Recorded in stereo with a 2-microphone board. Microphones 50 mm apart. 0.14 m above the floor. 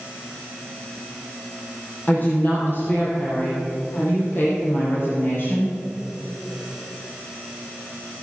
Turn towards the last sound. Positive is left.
turn(degrees=60)  # may be behind; listen again after turning